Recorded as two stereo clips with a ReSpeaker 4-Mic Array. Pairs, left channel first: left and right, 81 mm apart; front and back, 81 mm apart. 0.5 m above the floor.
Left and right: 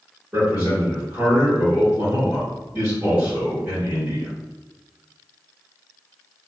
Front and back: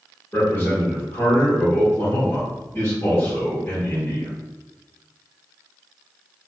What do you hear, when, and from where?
0.3 s a man speaking: 40° right, 1.7 m